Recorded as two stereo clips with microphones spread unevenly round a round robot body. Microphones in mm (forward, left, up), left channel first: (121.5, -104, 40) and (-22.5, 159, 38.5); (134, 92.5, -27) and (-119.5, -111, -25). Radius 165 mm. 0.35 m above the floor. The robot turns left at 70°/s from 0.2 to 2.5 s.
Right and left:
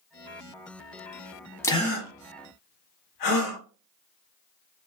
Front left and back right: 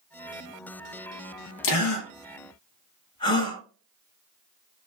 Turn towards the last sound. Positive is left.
turn(degrees=-40)